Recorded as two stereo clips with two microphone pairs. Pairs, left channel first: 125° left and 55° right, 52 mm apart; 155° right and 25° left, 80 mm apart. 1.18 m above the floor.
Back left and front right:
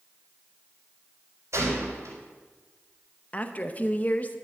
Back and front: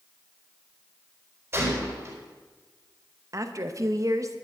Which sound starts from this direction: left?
A woman speaking, at 3.3 s.